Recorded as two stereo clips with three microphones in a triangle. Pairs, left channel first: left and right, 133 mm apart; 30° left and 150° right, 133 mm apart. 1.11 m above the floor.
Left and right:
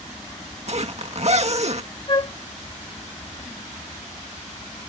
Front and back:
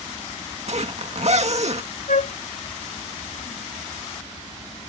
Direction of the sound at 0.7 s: 120° right.